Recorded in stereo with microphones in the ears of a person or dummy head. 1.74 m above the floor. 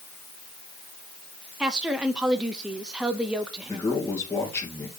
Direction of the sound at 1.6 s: 5° right (ahead or behind).